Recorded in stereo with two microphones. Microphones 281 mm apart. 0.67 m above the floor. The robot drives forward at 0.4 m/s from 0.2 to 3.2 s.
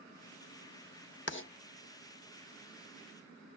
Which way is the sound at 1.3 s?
40° left (ahead or behind).